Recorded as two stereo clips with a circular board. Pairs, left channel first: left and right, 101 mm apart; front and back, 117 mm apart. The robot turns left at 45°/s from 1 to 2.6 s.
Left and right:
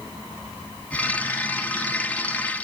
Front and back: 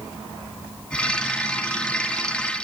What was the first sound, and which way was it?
Only background noise.